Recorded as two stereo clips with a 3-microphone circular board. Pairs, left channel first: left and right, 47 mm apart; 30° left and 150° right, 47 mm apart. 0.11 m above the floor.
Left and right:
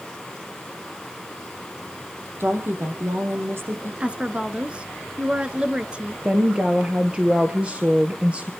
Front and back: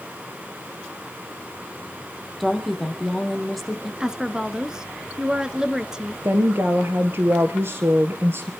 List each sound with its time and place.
2.4 s a woman speaking: 60° right, 3.5 m
4.0 s a woman speaking: 100° right, 1.1 m
6.2 s a woman speaking: 155° right, 1.7 m